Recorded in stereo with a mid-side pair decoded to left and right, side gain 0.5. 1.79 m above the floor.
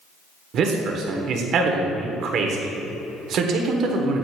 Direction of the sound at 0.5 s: 65° right.